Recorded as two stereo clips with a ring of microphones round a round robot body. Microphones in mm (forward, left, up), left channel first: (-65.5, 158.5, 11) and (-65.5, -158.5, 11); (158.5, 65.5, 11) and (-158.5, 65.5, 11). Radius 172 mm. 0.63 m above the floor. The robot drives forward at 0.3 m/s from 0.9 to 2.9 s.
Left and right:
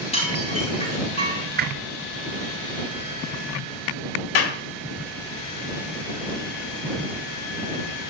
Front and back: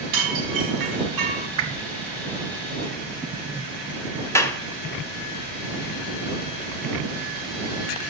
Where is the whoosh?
145° right, 1.4 m; by 1.9 s 150° right, 1.4 m.